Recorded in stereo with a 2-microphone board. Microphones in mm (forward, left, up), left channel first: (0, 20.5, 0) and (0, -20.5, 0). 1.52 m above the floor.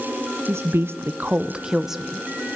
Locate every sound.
0.5 s a woman speaking: 80° right, 0.9 m; by 2.2 s 5° right (ahead or behind), 1.6 m